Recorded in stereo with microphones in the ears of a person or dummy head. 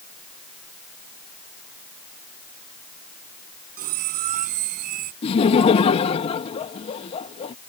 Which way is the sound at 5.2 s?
30° left (ahead or behind).